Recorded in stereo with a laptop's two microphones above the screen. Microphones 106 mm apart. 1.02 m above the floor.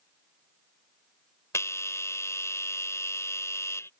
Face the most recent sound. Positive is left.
turn(degrees=25)  # may be behind; listen again after turning